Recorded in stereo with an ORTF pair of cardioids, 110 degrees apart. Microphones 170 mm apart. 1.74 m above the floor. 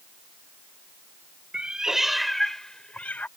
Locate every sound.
1.5 s a cat meowing: 5° right; by 3.3 s 10° left